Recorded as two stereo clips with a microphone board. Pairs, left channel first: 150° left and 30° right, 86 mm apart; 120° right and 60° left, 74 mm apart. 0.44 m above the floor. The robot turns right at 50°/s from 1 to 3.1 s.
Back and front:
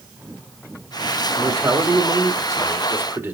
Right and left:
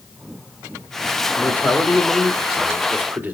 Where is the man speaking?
70° right, 1.4 m; by 3.4 s 15° left, 1.4 m.